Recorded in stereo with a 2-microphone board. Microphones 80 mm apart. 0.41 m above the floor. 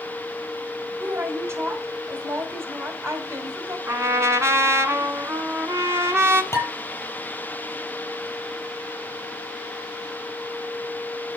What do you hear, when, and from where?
1.0 s a woman speaking: 35° right (ahead or behind), 2.0 m
3.9 s a trumpet: 35° right (ahead or behind), 1.3 m
6.5 s dishes clattering: 35° left (ahead or behind), 7 m